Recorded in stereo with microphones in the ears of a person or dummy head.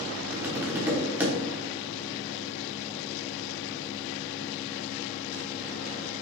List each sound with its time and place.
0.3 s tapping: 10° right (ahead or behind), 1.2 m